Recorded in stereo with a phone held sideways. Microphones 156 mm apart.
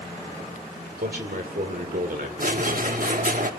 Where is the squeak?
60° right (ahead or behind), 1.1 m.